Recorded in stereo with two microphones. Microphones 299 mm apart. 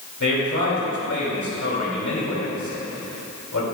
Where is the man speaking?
60° left (ahead or behind), 2.5 m.